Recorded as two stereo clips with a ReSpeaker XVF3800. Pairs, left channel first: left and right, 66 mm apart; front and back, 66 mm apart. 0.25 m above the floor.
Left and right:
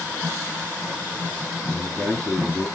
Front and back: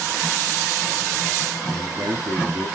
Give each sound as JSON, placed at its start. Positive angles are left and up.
{"t": 1.7, "sound": "a man speaking", "azimuth_deg": 155, "distance_m": 5.0}